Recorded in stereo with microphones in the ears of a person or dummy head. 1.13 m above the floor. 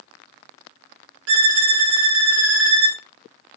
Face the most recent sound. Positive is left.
turn(degrees=-70)  # may be behind; listen again after turning